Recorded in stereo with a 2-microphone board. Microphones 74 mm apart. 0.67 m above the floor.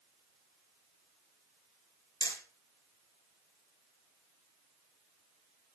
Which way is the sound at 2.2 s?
70° left (ahead or behind).